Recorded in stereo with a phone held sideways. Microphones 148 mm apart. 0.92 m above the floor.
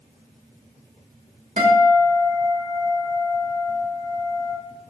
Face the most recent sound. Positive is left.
turn(degrees=-55)  # may be behind; listen again after turning